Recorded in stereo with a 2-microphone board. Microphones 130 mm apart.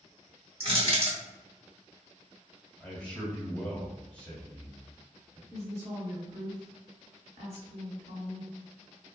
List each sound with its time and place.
0.6 s crushing: 45° right (ahead or behind), 1.2 m
2.8 s a man speaking: 10° left (ahead or behind), 1.3 m
5.5 s a woman speaking: 55° right (ahead or behind), 1.6 m